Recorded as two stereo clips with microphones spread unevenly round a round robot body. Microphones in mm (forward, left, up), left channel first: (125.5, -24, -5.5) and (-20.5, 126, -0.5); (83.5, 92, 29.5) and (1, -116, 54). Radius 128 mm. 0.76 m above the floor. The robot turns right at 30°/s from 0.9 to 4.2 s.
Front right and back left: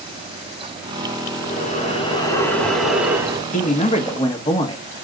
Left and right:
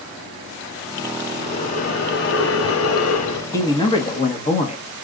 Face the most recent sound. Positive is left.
turn(degrees=15)